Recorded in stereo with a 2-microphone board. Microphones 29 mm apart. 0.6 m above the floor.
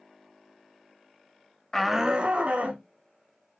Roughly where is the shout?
Centre.